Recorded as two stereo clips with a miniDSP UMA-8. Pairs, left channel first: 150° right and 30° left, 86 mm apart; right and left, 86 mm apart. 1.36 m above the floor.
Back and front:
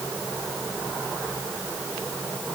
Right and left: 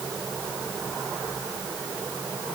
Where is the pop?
No pop in this recording.